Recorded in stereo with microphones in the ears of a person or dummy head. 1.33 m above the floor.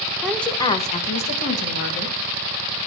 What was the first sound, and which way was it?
A woman speaking, 5° right (ahead or behind).